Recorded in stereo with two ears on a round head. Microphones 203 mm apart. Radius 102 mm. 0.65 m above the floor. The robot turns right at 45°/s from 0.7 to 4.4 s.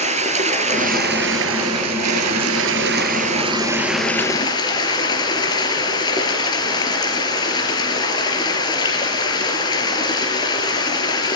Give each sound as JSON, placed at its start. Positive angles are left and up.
{"t": 0.0, "sound": "running water", "azimuth_deg": -150, "distance_m": 4.0}